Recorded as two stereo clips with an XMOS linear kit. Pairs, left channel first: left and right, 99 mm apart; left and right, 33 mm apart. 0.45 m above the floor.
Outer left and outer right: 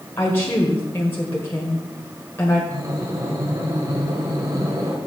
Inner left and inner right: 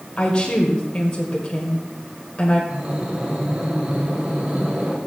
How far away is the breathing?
About 2 m.